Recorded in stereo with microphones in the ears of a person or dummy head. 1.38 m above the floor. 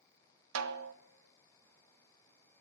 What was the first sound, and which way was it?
A snare drum, 85° right.